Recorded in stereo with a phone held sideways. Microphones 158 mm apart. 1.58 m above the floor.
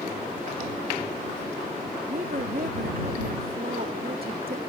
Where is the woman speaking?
75° right (ahead or behind).